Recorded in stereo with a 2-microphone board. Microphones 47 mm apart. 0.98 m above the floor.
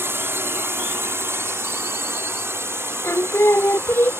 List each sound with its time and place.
0.0 s a drone: 60° right (ahead or behind)
3.0 s singing: 80° left